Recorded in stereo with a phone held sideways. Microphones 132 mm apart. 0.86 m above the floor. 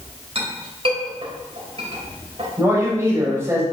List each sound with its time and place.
0.3 s a clink: 45° right (ahead or behind), 3 m
2.6 s a man speaking: 20° right (ahead or behind), 3.5 m